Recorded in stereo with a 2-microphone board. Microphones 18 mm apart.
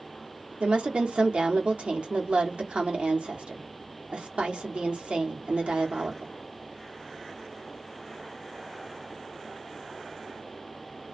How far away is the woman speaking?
About 0.9 m.